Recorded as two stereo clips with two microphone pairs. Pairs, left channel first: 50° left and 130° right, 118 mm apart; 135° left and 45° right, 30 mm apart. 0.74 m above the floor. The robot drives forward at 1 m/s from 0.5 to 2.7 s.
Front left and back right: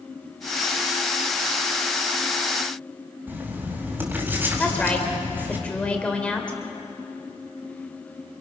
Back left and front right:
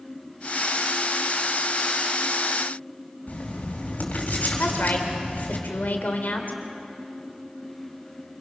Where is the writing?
160° left, 4 m.